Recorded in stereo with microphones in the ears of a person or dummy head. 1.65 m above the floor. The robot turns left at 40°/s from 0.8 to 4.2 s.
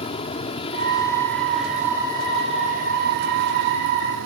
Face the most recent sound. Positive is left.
turn(degrees=-105)